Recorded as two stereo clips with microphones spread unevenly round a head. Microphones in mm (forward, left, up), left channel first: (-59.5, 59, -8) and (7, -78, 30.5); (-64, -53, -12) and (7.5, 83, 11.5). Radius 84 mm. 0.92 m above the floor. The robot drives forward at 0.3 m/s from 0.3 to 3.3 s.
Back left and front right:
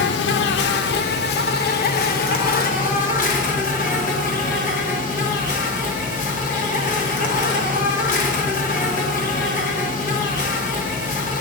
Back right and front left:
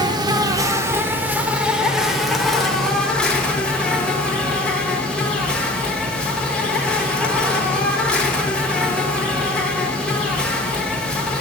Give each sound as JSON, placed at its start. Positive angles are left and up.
{"t": 0.0, "sound": "an insect", "azimuth_deg": 115, "distance_m": 0.7}